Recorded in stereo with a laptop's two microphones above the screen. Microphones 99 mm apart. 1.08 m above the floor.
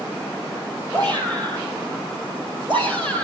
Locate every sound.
0.9 s a shout: 50° right (ahead or behind), 5.5 m; by 3.2 s 60° right (ahead or behind), 4 m